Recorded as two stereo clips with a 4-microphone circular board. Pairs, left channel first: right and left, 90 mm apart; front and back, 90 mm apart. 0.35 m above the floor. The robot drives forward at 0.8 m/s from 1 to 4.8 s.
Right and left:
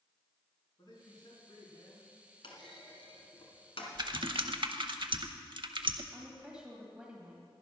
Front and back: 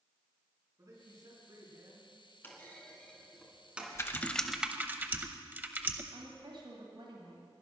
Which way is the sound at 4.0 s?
55° left.